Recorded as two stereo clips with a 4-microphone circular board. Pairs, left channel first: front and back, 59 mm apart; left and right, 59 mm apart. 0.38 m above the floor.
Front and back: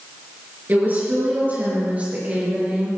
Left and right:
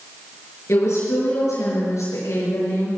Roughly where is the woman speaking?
Behind left.